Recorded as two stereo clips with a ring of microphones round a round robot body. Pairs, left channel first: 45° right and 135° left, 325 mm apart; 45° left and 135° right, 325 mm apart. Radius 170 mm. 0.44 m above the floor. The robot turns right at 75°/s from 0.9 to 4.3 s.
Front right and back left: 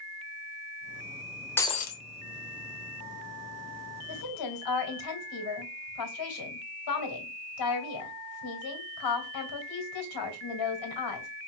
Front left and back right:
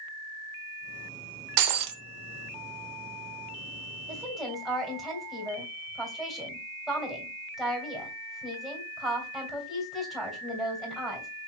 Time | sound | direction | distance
1.6 | breaking glass | 130° right | 0.8 m
4.1 | a woman speaking | 60° right | 2.5 m